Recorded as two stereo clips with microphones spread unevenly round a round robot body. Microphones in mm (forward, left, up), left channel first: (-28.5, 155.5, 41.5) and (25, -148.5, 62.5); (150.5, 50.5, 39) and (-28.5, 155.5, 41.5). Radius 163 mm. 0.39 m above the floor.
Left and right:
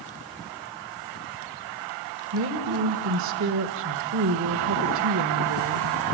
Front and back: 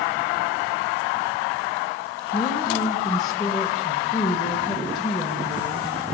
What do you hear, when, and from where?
2.3 s a woman speaking: 120° right, 1.7 m